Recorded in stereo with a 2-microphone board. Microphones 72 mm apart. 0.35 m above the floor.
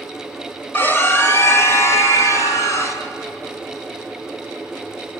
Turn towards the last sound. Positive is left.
turn(degrees=45)  # may be behind; listen again after turning